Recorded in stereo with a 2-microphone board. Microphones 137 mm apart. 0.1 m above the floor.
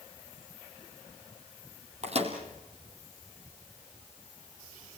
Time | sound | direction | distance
2.0 | a microwave | 50° right (ahead or behind) | 3 m